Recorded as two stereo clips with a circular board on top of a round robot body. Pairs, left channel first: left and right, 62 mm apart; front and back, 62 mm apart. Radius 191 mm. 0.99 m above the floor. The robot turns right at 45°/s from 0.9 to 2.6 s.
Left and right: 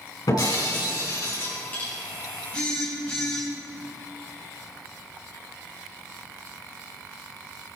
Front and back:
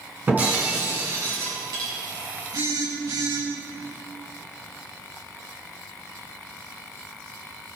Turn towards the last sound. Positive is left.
turn(degrees=165)